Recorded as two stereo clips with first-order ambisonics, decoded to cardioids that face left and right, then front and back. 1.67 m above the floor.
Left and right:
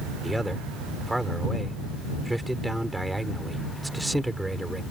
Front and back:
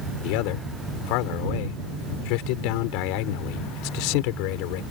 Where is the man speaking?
5° right.